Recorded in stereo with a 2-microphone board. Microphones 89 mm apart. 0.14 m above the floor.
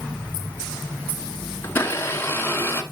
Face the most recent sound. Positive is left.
turn(degrees=25)  # may be behind; listen again after turning